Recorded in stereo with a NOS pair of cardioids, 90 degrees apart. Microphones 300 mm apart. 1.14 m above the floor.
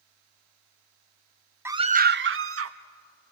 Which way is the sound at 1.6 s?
5° right.